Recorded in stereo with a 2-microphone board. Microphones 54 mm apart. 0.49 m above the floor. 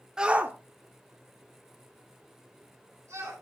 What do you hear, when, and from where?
0.2 s a shout: 10° right (ahead or behind), 0.7 m; by 3.3 s 75° right (ahead or behind), 4 m